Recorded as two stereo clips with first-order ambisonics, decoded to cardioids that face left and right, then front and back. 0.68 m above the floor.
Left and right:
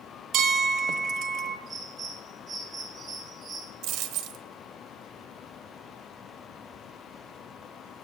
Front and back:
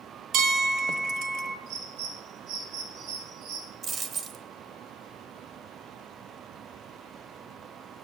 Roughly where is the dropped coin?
Behind right.